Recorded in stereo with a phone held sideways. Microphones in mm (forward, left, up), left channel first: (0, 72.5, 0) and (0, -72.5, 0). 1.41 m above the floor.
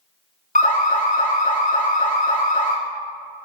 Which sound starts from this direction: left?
An alarm, at 0.6 s.